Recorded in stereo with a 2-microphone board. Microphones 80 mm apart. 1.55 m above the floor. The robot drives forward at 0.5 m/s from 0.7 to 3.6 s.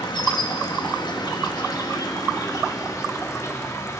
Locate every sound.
0.0 s an insect: 65° left (ahead or behind), 1.6 m; by 4.0 s 40° left (ahead or behind), 2.5 m